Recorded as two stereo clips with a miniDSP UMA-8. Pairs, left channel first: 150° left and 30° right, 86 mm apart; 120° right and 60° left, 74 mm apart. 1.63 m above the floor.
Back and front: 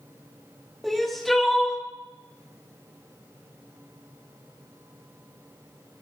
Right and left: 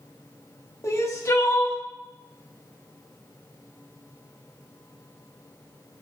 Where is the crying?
125° right, 1.4 m.